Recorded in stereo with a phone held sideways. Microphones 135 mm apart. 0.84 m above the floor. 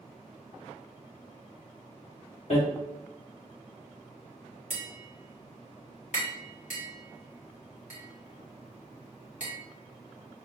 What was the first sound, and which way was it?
Hammering, 60° left (ahead or behind).